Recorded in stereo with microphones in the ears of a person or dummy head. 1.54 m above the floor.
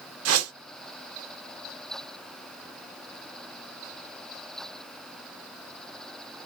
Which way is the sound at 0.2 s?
85° right.